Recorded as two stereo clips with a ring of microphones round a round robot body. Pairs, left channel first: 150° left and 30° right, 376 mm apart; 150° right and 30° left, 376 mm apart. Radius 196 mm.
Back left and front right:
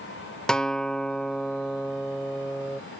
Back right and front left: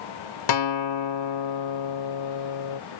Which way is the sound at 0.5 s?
120° right.